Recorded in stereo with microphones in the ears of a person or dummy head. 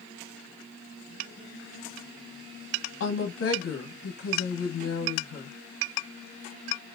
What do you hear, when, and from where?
3.0 s a woman speaking: 65° left (ahead or behind), 1.3 m